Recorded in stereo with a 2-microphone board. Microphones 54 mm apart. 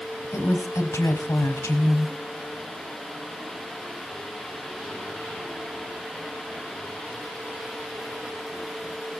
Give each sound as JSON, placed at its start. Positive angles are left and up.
{"t": 0.2, "sound": "a woman speaking", "side_deg": 75, "distance_m": 4.0}